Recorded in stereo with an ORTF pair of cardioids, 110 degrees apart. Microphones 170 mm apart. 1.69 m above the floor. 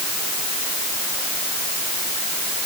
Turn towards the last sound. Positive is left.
No sound to turn to.